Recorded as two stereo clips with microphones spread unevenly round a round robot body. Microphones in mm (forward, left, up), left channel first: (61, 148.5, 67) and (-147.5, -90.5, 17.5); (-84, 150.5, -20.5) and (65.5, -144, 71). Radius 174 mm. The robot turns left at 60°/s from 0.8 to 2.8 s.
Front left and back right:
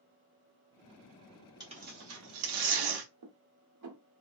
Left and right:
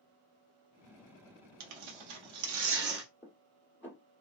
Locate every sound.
1.6 s tearing paper: 50° right, 1.0 m; by 3.1 s 125° right, 1.0 m
3.2 s dishes clattering: 160° right, 1.3 m